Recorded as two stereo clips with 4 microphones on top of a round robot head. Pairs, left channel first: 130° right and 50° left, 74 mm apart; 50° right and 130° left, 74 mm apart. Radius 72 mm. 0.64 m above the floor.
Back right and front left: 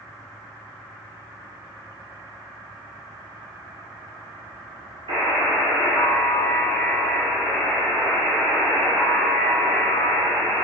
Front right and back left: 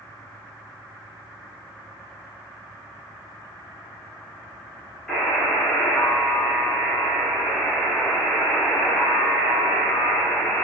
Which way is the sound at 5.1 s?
30° left.